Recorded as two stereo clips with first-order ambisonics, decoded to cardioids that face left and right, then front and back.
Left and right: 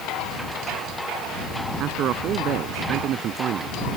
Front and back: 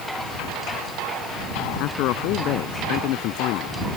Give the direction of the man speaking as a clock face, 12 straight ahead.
1 o'clock.